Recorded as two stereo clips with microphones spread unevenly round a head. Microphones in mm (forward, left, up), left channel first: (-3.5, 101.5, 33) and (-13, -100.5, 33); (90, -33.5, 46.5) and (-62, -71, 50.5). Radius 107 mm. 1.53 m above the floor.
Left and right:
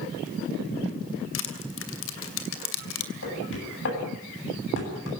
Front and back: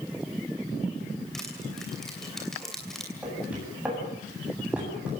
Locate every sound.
1.3 s crushing: 105° left, 2.5 m
3.2 s knocking: 110° left, 9 m